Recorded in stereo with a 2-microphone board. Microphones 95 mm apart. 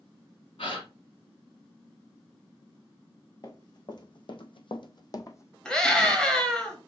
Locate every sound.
0.6 s a gasp: 75° left (ahead or behind), 1.5 m
3.4 s running footsteps: 40° left (ahead or behind), 1.1 m; by 5.5 s 25° left (ahead or behind), 0.7 m
5.7 s a scream: 10° left (ahead or behind), 1.4 m